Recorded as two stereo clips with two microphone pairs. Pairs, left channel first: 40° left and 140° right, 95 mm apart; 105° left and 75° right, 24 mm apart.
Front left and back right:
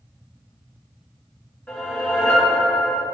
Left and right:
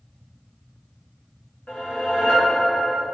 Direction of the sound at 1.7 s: 115° left.